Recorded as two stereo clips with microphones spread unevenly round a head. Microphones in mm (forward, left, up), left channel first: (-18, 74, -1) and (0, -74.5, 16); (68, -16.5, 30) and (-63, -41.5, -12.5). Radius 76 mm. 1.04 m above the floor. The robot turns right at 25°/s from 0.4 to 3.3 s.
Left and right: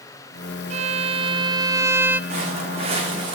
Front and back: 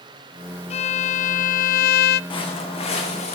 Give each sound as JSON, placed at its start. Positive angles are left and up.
{"t": 0.7, "sound": "a violin", "azimuth_deg": -40, "distance_m": 0.6}
{"t": 2.3, "sound": "footsteps", "azimuth_deg": -40, "distance_m": 5.5}